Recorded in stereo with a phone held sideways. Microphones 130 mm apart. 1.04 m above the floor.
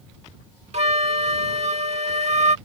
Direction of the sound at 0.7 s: 60° right (ahead or behind).